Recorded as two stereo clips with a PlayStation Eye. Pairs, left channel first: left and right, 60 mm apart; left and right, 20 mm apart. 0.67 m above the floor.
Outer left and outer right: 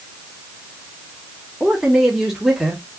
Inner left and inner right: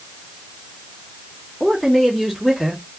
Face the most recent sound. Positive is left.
turn(degrees=-5)  # may be behind; listen again after turning